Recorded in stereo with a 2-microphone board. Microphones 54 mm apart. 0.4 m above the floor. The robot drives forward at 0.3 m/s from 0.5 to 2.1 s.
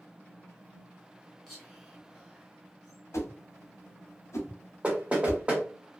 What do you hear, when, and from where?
1.5 s whispering: 5° right (ahead or behind), 1.4 m
3.1 s a whoosh: 60° left (ahead or behind), 0.8 m
4.8 s knocking: 20° right (ahead or behind), 0.8 m